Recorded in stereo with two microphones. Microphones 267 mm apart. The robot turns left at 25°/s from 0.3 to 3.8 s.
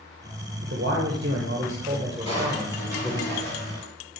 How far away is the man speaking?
About 1.0 m.